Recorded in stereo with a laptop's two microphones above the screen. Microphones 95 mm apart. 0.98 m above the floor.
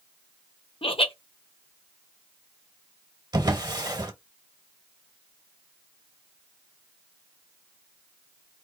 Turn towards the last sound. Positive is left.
turn(degrees=-40)  # may be behind; listen again after turning